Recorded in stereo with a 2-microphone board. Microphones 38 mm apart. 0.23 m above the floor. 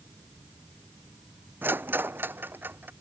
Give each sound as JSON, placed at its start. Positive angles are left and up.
{"t": 1.6, "sound": "a rattle", "side_deg": -70}